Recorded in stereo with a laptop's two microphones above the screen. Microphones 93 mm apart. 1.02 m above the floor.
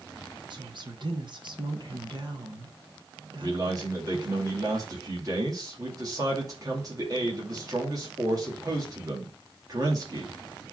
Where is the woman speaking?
55° right (ahead or behind), 1.3 m.